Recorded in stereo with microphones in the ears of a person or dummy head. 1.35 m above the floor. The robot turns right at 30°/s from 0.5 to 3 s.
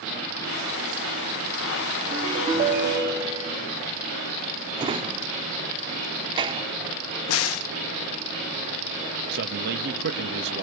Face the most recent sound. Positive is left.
turn(degrees=-55)  # may be behind; listen again after turning